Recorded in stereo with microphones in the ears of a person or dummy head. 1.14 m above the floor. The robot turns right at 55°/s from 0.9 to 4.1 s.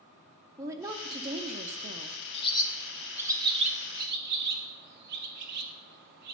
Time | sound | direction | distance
0.6 | a woman speaking | 15° right (ahead or behind) | 0.6 m
2.3 | a bird | 35° left (ahead or behind) | 0.6 m